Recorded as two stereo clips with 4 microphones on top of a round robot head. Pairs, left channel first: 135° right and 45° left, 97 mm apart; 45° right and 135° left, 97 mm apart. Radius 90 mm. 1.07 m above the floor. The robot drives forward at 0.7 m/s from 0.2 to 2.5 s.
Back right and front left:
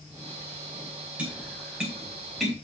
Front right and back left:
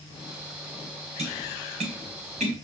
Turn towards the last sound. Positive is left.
turn(degrees=135)